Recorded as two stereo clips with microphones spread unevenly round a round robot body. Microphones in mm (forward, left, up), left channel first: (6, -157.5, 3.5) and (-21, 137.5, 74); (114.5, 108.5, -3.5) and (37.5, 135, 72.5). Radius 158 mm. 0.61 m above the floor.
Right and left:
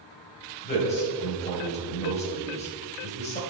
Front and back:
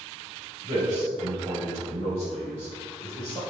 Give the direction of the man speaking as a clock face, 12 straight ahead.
5 o'clock.